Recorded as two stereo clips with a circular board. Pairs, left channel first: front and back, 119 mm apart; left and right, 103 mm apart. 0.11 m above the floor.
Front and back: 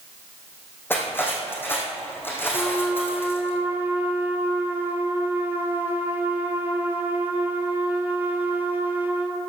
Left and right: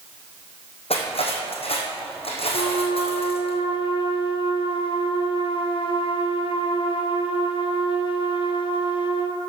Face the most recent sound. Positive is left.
turn(degrees=110)